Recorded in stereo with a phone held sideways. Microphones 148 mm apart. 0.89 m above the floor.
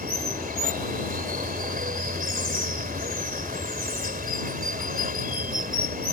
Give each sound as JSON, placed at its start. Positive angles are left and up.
{"t": 0.0, "sound": "running water", "side_deg": -75}